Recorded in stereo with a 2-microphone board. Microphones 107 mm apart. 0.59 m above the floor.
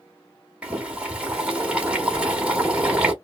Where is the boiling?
10° right (ahead or behind), 1.1 m.